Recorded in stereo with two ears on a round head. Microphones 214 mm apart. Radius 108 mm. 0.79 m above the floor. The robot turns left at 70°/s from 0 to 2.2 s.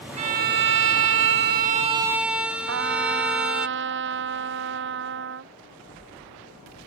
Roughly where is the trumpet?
Right.